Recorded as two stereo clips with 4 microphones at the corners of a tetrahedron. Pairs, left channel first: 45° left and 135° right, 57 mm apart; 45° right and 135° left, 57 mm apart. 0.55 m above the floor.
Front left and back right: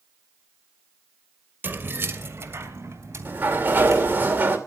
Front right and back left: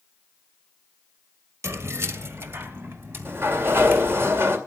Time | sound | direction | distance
1.6 | keys jangling | 170° left | 1.3 m
3.2 | a sliding door | 175° left | 2 m